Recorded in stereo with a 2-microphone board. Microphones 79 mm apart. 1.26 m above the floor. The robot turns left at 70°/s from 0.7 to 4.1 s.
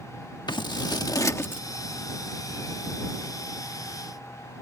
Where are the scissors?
70° left (ahead or behind); by 1.6 s 20° left (ahead or behind).